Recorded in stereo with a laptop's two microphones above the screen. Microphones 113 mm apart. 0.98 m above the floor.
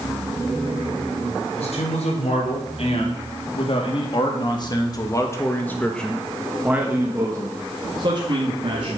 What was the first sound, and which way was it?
A man speaking, 70° left (ahead or behind).